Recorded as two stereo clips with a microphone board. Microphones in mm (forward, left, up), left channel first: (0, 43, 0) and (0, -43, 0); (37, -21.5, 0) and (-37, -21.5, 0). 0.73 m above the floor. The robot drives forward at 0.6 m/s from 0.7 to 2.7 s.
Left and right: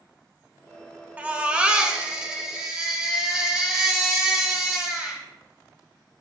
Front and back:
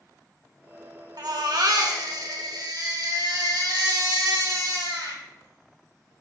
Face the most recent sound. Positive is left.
turn(degrees=-170)